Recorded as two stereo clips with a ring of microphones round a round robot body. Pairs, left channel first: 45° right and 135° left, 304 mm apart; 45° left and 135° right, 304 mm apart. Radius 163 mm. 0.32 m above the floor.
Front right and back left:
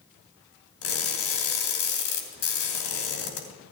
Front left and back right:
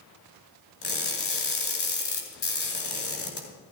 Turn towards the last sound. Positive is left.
turn(degrees=-10)